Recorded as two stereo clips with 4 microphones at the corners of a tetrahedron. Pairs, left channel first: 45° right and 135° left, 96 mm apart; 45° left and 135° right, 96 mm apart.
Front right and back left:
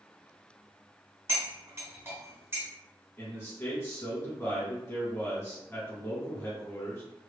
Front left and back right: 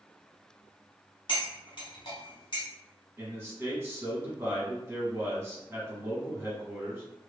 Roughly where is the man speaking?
Right.